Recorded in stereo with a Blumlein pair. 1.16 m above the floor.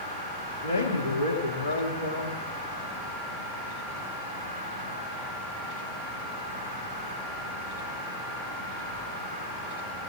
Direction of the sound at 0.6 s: 65° left.